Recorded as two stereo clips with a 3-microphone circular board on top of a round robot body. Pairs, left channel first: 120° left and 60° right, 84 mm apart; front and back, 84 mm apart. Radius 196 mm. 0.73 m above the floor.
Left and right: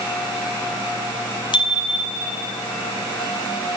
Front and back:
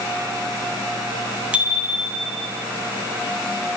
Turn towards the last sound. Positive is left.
turn(degrees=95)